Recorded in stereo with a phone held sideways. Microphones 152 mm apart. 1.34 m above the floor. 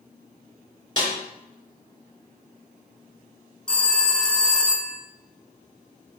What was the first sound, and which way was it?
A snare drum, 30° left (ahead or behind).